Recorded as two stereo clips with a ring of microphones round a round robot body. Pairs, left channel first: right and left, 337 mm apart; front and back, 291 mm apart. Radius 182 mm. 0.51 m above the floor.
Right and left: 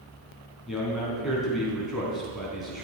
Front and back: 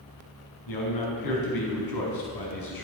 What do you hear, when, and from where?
0.7 s a man speaking: straight ahead, 5 m